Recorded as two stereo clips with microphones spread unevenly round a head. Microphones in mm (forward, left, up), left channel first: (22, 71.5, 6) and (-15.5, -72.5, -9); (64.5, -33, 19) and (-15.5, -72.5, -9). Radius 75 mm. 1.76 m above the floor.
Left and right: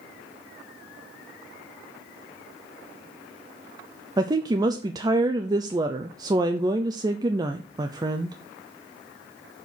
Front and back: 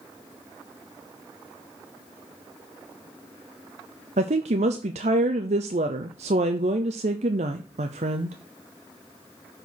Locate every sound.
4.2 s a woman speaking: 170° right, 0.6 m